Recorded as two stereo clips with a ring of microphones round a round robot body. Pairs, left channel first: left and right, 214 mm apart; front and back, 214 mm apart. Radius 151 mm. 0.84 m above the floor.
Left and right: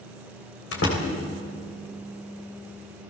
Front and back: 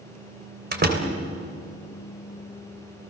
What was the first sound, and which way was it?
A door slam, 140° left.